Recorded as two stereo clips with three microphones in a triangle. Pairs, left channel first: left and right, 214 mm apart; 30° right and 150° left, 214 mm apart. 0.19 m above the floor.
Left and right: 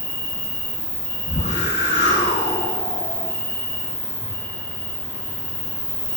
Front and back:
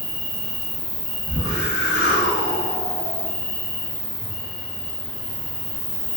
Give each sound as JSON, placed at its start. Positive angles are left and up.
{"t": 0.0, "sound": "an insect", "azimuth_deg": 170, "distance_m": 1.3}
{"t": 1.3, "sound": "a whoosh", "azimuth_deg": 130, "distance_m": 1.3}